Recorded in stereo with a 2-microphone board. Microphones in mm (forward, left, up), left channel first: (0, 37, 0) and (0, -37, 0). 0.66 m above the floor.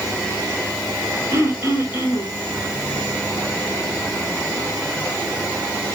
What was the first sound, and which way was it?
Throat clearing, 30° right (ahead or behind).